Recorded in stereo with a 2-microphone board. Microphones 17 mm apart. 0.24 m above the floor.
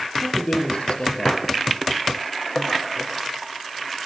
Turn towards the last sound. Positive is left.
turn(degrees=65)  # may be behind; listen again after turning